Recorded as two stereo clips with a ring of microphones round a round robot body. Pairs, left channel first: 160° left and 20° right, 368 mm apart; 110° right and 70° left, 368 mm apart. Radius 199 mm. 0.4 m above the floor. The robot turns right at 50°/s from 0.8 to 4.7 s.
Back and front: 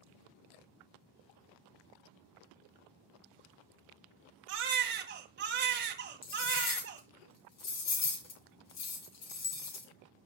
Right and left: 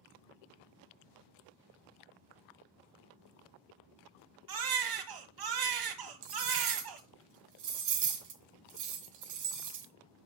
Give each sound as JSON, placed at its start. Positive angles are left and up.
{"t": 4.5, "sound": "a baby crying", "azimuth_deg": 30, "distance_m": 1.9}
{"t": 6.2, "sound": "cutlery clinking", "azimuth_deg": 110, "distance_m": 2.5}